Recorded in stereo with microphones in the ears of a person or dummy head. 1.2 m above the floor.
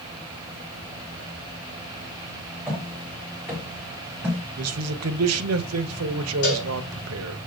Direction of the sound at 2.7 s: 10° right (ahead or behind).